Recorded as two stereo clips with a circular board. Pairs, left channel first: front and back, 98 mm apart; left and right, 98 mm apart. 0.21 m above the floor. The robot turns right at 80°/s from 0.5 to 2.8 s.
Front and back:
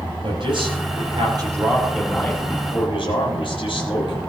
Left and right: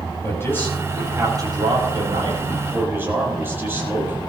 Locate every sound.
0.2 s a man speaking: 150° left, 7.5 m; by 4.2 s 25° right, 7.5 m